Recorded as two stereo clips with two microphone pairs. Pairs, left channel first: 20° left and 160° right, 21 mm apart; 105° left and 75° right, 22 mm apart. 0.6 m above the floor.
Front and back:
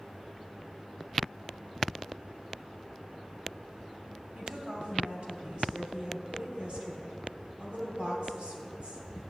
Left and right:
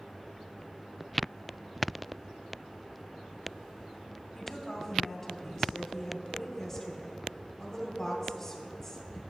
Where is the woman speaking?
Straight behind, 2.5 m.